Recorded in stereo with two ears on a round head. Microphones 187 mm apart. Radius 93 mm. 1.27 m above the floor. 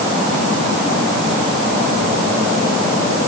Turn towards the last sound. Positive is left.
No sound to turn to.